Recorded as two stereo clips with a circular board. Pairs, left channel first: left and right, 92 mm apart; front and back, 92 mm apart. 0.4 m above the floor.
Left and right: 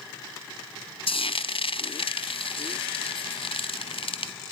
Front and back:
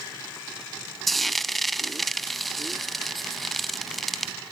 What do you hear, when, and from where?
1.1 s frying: 90° left, 1.1 m